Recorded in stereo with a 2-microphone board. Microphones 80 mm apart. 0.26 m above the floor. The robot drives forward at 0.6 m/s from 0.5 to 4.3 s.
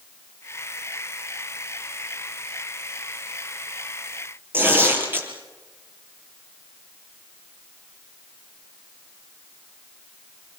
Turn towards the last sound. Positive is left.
turn(degrees=-25)  # may be behind; listen again after turning